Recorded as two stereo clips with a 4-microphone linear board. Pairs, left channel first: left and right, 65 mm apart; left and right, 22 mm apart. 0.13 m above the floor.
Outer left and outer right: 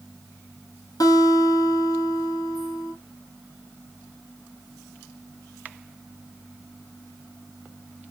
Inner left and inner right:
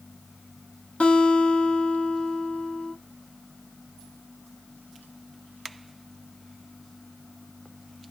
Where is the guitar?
70° left (ahead or behind), 1.9 m.